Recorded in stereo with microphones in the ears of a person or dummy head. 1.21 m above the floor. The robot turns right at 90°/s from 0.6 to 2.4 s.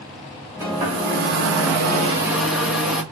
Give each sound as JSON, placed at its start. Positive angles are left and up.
{"t": 0.6, "sound": "a hair dryer", "azimuth_deg": -165, "distance_m": 3.5}